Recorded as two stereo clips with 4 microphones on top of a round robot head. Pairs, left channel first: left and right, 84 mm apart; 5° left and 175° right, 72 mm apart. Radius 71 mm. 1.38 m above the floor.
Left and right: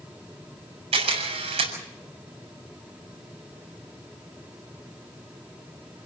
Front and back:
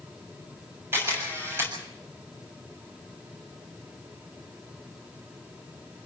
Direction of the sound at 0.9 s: 105° right.